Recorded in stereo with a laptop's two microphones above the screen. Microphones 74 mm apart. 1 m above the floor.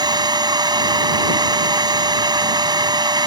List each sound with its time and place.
0.0 s a machine running: 75° right (ahead or behind)